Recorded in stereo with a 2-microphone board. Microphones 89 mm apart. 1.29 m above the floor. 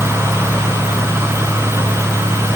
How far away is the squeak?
No squeak in this recording.